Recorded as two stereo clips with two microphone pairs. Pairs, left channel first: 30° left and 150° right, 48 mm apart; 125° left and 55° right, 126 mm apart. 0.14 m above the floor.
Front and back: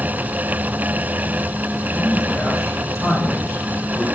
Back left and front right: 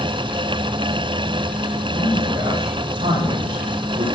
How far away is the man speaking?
About 7.5 m.